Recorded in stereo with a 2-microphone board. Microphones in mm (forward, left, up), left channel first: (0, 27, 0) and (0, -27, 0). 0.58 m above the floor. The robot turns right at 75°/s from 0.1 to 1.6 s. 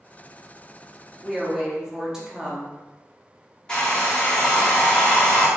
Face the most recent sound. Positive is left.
turn(degrees=20)  # may be behind; listen again after turning